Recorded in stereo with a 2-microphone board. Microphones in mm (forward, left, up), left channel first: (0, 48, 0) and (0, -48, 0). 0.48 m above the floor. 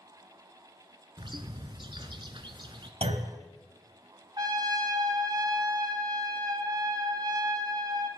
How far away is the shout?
I don't hear a shout.